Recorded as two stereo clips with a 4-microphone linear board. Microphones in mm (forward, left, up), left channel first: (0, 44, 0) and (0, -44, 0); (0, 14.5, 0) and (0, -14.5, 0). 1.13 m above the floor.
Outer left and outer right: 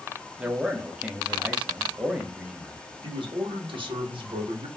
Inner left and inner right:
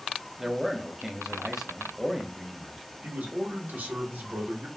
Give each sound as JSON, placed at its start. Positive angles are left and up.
{"t": 0.4, "sound": "a man speaking", "side_deg": -15, "distance_m": 0.6}
{"t": 3.0, "sound": "a man speaking", "side_deg": -65, "distance_m": 1.0}